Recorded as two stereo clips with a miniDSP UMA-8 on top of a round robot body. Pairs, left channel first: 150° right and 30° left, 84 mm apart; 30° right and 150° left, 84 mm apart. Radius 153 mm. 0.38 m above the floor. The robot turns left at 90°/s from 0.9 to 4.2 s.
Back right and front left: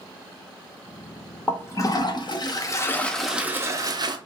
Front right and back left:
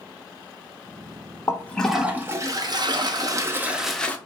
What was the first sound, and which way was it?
A toilet flushing, 80° right.